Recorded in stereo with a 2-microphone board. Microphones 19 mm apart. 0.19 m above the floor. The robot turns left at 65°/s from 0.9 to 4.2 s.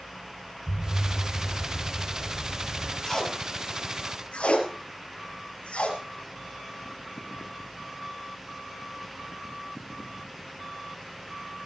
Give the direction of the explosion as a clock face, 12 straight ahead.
10 o'clock.